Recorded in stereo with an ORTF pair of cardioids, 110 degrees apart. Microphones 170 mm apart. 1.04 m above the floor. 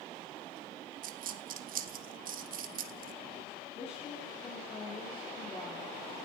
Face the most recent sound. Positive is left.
turn(degrees=35)